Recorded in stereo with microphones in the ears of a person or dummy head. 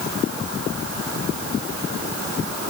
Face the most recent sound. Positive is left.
No sound to turn to.